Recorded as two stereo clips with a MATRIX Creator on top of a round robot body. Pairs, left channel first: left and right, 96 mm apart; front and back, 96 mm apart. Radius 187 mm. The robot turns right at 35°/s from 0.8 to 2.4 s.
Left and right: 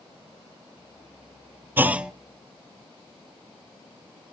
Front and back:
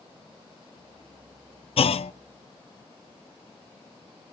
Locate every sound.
1.8 s a clunk: 20° right, 0.6 m; by 2.1 s 5° right, 0.6 m